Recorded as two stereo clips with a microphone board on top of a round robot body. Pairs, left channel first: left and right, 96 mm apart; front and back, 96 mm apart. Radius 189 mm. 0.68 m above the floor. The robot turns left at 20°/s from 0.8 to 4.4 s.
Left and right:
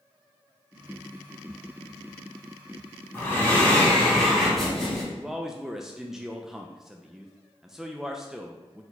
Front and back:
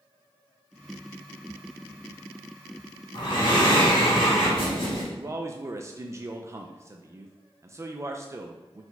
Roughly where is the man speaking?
Behind.